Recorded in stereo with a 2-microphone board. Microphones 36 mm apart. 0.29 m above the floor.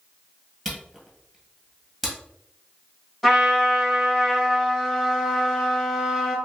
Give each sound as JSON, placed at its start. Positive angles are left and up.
{"t": 0.7, "sound": "a camera shutter", "side_deg": 0, "distance_m": 1.6}
{"t": 3.2, "sound": "a trumpet", "side_deg": 10, "distance_m": 1.9}